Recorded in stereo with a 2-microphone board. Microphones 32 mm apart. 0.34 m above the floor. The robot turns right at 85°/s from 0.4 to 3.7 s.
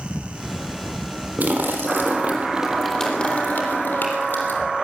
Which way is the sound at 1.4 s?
120° right.